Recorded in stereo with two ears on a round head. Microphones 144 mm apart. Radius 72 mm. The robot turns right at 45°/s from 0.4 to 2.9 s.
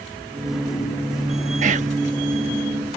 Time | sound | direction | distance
1.6 | whispering | 50° right (ahead or behind) | ?